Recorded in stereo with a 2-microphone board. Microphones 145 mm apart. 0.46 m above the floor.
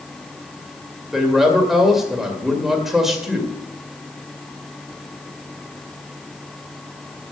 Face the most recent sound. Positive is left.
turn(degrees=0)  # may be behind; listen again after turning